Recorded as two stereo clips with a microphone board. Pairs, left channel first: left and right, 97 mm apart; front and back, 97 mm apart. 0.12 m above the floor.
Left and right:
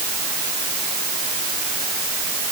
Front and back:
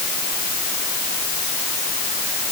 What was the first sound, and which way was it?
Only background noise.